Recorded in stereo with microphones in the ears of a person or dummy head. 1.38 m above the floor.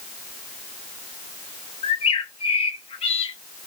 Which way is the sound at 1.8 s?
30° left (ahead or behind).